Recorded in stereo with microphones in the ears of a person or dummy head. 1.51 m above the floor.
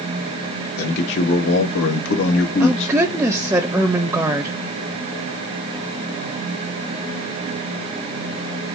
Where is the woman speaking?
10° right (ahead or behind), 0.7 m.